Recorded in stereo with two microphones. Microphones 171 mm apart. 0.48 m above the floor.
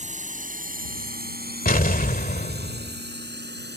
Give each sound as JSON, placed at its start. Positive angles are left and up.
{"t": 0.0, "sound": "a drone", "side_deg": -45}
{"t": 1.6, "sound": "an explosion", "side_deg": 55}